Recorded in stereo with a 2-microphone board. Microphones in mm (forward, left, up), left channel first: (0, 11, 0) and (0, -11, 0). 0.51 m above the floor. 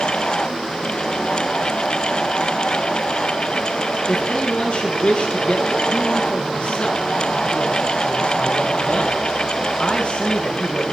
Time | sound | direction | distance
4.1 | a man speaking | 40° left (ahead or behind) | 8.5 m